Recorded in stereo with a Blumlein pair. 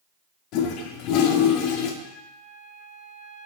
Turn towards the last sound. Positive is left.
turn(degrees=20)